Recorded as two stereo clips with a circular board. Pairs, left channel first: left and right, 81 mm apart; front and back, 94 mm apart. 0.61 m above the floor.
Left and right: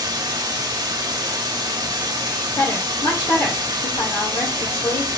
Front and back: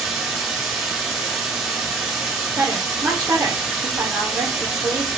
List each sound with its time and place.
0.0 s running water: 95° right, 1.5 m
2.6 s a woman speaking: 110° left, 2.0 m